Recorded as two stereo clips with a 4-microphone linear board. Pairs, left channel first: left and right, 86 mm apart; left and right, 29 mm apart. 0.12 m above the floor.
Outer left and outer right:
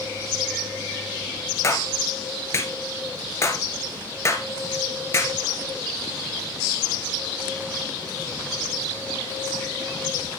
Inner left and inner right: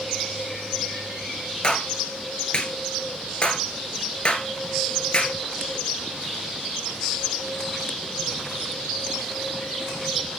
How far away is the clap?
About 1.7 m.